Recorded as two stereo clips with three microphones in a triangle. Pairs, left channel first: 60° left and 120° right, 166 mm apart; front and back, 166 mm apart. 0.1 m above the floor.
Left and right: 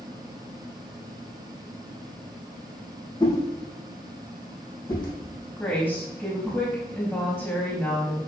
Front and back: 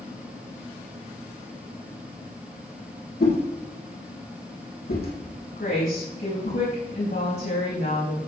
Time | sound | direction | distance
3.2 | a whoosh | 5° right | 4 m
5.6 | a woman speaking | 20° right | 6 m